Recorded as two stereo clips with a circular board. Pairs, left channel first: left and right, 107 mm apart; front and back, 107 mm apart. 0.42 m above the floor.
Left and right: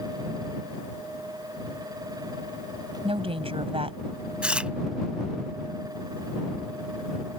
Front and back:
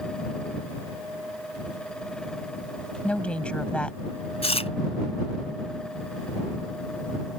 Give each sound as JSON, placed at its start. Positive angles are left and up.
{"t": 3.0, "sound": "a woman speaking", "azimuth_deg": -80}
{"t": 4.4, "sound": "chewing", "azimuth_deg": -10}